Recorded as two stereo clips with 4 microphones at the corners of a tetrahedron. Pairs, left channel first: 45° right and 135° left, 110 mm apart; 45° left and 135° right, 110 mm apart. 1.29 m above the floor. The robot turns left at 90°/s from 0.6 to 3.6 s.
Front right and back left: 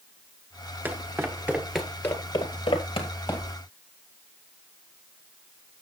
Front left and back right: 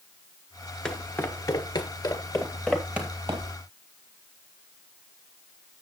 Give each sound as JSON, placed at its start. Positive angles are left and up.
{"t": 0.8, "sound": "footsteps", "azimuth_deg": 115, "distance_m": 1.3}